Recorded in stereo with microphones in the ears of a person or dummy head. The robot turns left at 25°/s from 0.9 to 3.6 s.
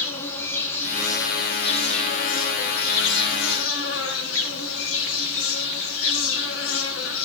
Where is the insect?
165° left, 1.7 m; by 7.3 s 100° left, 1.7 m.